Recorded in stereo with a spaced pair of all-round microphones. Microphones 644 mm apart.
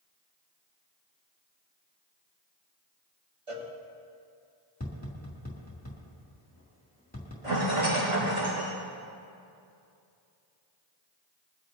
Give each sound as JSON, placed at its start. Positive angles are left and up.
{"t": 3.5, "sound": "a cowbell", "side_deg": -55, "distance_m": 1.8}
{"t": 4.8, "sound": "tapping", "side_deg": 15, "distance_m": 3.0}
{"t": 7.4, "sound": "a rattle", "side_deg": -75, "distance_m": 4.5}